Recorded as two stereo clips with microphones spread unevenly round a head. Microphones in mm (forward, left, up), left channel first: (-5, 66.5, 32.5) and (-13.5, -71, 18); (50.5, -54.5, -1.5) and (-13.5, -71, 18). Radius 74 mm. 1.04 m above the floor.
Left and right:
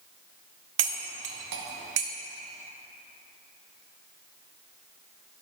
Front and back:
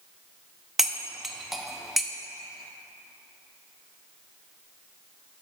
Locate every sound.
0.8 s cutlery clinking: 85° right, 0.7 m